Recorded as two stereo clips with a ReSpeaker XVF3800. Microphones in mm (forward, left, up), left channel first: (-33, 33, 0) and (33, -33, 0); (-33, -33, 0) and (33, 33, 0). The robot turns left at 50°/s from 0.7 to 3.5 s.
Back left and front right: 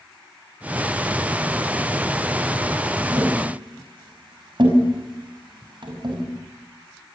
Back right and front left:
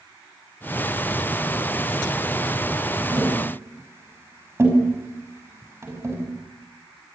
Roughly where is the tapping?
Ahead.